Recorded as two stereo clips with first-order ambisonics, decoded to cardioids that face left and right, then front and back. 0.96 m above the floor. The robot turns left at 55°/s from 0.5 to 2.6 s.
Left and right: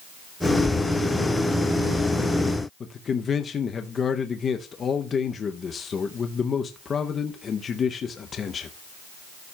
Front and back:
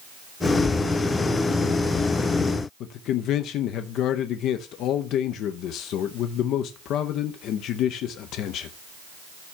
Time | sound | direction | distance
2.8 | a man speaking | 30° left | 0.6 m